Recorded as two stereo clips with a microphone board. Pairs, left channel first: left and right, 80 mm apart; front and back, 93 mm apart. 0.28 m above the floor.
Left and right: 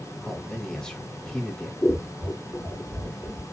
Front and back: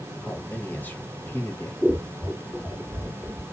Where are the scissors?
65° left, 1.4 m.